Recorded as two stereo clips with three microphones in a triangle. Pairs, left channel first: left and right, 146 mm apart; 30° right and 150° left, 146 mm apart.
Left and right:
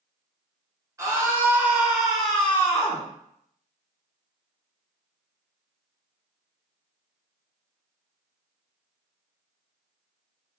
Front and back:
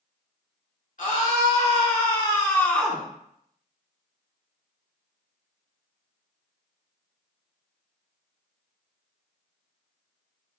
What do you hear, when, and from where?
1.0 s a scream: 25° right, 2 m; by 3.1 s 70° left, 1.1 m